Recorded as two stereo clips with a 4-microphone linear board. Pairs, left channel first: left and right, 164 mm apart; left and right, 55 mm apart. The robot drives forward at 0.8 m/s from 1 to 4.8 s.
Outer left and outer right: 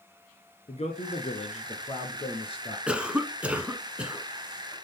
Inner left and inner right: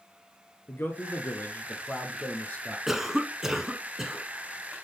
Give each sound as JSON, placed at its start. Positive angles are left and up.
{"t": 0.7, "sound": "a man speaking", "side_deg": 40, "distance_m": 1.7}
{"t": 2.9, "sound": "a cough", "side_deg": -5, "distance_m": 1.2}